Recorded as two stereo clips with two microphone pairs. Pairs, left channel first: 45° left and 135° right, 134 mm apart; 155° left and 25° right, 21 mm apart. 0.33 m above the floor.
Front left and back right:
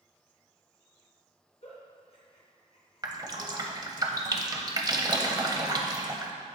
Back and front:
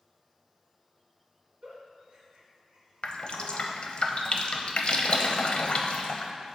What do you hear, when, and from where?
1.6 s a giggle: 10° left, 1.8 m
3.0 s dripping: 170° left, 0.6 m